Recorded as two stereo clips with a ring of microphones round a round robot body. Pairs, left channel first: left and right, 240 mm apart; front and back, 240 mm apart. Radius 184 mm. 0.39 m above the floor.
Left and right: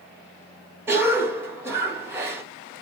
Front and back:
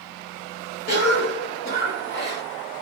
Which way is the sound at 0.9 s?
15° right.